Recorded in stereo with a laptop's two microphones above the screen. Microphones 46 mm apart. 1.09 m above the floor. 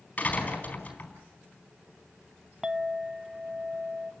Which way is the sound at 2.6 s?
15° right (ahead or behind).